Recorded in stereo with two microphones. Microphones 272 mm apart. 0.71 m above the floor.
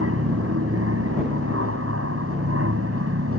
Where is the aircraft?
55° right (ahead or behind).